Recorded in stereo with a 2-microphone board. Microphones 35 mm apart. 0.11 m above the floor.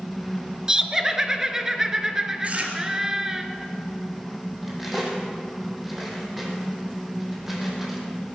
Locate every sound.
0.7 s laughter: 15° right (ahead or behind), 1.3 m
2.4 s chewing: 40° right (ahead or behind), 2.0 m
4.6 s cutlery clinking: 5° right (ahead or behind), 2.5 m